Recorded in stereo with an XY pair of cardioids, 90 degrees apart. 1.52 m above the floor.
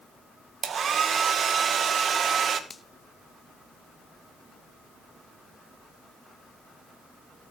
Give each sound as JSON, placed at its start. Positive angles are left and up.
{"t": 0.6, "sound": "a hair dryer", "azimuth_deg": -55, "distance_m": 1.7}
{"t": 2.7, "sound": "a finger snap", "azimuth_deg": 30, "distance_m": 1.4}